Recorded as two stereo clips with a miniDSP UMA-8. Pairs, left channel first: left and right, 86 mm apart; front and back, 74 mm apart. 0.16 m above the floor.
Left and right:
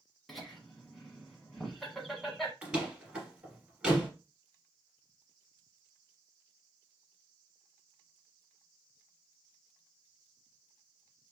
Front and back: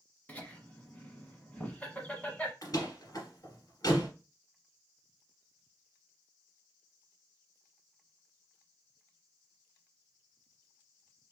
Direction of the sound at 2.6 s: 15° right.